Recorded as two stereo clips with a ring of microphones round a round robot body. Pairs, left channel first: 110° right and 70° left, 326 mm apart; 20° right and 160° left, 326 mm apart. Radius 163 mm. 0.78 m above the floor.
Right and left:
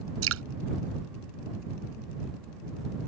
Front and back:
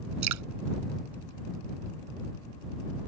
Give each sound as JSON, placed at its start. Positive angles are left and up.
{"t": 0.2, "sound": "dripping", "azimuth_deg": 120}